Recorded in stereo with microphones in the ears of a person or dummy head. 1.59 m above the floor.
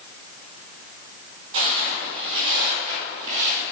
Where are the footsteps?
50° right (ahead or behind), 2.5 m; by 3.6 s 35° right (ahead or behind), 3 m.